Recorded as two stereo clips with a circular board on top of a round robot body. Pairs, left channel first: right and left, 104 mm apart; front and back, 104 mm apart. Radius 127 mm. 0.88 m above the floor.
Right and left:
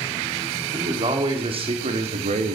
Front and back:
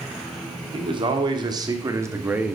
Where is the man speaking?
135° left, 2.5 m; by 2.6 s 100° left, 1.2 m.